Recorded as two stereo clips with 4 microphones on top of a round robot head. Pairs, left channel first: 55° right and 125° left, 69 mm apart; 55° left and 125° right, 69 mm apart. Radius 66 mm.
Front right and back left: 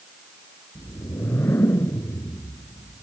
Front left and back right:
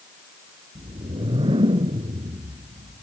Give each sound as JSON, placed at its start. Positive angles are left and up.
{"t": 0.8, "sound": "a whoosh", "azimuth_deg": -115}